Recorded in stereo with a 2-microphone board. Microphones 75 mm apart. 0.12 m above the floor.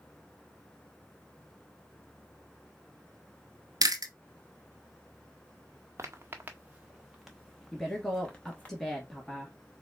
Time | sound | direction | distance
3.8 | chewing | 65° right (ahead or behind) | 0.8 m
6.0 | footsteps | 40° right (ahead or behind) | 1.0 m
7.7 | a woman speaking | 5° left (ahead or behind) | 1.7 m